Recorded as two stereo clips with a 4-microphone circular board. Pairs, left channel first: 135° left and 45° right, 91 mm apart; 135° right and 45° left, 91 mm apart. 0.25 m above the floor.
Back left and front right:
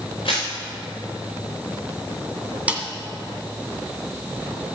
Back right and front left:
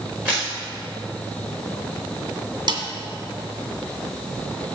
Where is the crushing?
115° left, 4.5 m.